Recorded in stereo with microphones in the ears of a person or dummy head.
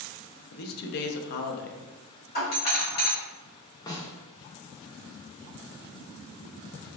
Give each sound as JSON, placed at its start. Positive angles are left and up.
{"t": 0.5, "sound": "a man speaking", "side_deg": 65, "distance_m": 0.7}
{"t": 2.4, "sound": "a doorbell", "side_deg": 45, "distance_m": 1.7}
{"t": 3.9, "sound": "a snare drum", "side_deg": 20, "distance_m": 0.8}